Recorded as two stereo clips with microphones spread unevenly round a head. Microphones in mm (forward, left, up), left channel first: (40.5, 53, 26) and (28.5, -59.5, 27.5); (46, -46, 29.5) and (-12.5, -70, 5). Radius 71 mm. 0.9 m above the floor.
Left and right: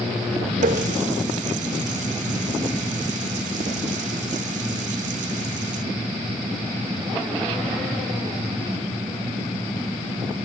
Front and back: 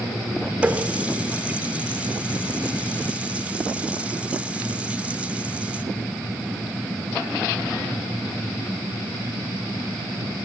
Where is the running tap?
85° right, 1.7 m.